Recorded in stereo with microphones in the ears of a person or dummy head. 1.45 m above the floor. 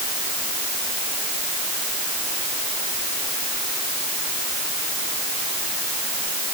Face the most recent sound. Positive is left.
No sound to turn to.